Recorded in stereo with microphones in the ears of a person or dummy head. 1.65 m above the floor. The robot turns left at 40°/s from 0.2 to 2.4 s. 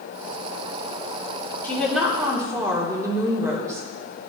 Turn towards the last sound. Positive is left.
turn(degrees=-20)